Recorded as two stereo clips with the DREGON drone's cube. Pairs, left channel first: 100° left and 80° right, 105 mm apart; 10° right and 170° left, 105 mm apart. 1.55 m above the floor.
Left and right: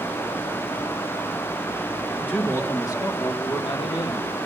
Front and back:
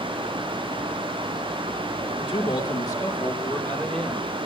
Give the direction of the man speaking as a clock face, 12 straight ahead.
11 o'clock.